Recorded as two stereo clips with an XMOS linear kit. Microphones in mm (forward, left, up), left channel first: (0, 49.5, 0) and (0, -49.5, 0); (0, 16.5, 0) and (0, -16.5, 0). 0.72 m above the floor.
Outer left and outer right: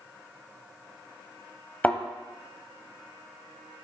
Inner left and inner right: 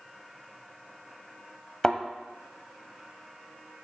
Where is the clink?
I don't hear a clink.